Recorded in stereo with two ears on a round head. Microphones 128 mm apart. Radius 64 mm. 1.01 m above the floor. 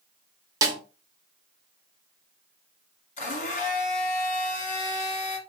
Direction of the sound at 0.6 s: 25° right (ahead or behind).